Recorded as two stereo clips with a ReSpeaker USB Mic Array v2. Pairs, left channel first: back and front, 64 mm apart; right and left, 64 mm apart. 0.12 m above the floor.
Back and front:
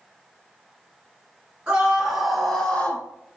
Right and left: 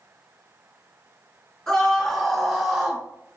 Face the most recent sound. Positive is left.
turn(degrees=155)